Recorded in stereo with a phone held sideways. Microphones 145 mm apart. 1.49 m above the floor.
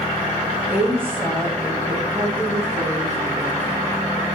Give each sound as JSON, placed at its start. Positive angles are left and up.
{"t": 0.7, "sound": "a woman speaking", "side_deg": -10, "distance_m": 2.5}